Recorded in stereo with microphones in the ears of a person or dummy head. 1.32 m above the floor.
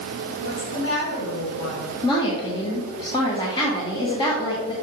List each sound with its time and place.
0.4 s a woman speaking: 80° left, 3.5 m
2.0 s a woman speaking: 25° left (ahead or behind), 1.1 m